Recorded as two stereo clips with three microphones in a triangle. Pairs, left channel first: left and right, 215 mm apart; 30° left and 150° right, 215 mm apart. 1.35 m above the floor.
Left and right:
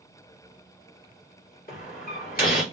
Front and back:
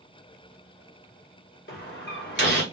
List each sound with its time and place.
1.7 s a door slam: 50° left, 1.6 m